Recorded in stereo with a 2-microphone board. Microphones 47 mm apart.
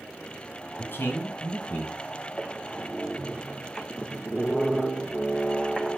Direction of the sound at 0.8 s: 50° left (ahead or behind).